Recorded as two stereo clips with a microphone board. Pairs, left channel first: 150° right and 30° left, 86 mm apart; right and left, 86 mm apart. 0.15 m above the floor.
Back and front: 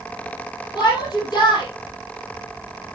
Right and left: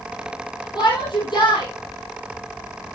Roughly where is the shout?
Behind right.